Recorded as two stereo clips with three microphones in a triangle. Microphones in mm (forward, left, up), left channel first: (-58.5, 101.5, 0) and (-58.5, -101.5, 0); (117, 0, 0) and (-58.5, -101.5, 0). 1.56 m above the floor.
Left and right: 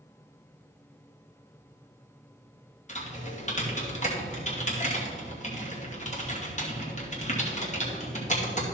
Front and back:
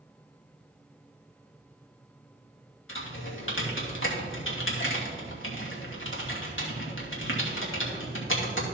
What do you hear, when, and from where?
2.9 s typing on a keyboard: 35° left, 2.5 m